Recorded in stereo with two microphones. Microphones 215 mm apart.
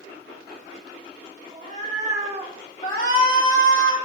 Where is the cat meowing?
40° right (ahead or behind), 2.5 m; by 2.6 s 20° right (ahead or behind), 1.2 m.